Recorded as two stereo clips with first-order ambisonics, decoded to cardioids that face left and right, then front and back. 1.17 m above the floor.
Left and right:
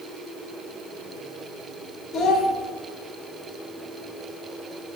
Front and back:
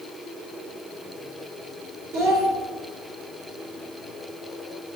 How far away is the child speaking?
About 3 m.